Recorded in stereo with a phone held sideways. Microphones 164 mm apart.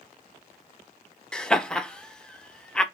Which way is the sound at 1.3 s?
5° left (ahead or behind).